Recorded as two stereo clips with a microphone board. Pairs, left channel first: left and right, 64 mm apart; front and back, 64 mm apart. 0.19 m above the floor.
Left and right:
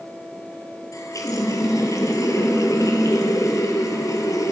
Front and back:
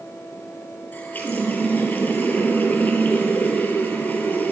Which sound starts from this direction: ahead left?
A running tap, at 0.9 s.